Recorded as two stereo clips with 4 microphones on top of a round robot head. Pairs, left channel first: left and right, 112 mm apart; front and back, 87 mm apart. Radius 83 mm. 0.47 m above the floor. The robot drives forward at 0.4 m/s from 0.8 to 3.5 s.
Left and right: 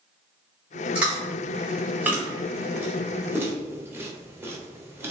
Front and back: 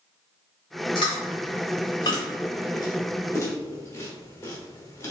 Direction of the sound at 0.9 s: 10° right.